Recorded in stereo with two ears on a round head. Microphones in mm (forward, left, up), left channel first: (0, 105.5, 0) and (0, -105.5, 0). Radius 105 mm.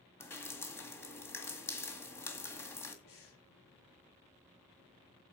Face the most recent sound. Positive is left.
turn(degrees=65)  # may be behind; listen again after turning